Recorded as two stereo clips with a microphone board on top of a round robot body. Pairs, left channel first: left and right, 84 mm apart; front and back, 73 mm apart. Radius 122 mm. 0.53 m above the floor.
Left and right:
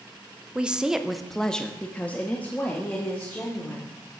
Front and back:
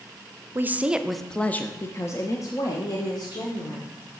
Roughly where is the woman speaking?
Behind right.